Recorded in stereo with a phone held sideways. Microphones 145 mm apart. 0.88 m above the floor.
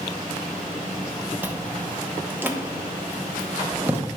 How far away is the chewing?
About 0.9 m.